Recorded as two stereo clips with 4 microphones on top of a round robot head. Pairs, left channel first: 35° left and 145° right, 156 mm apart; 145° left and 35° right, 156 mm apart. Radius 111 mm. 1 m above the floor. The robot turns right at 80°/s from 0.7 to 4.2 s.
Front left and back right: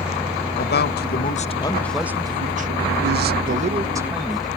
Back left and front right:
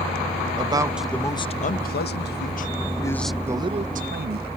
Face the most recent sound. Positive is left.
turn(degrees=-55)